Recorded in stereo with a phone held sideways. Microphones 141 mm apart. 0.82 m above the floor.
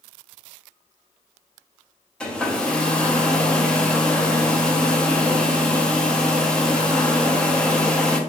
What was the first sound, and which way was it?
A hair dryer, 5° left (ahead or behind).